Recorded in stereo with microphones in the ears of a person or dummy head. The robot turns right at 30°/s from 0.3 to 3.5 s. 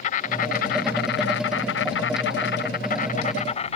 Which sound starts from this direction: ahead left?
An insect, at 0.0 s.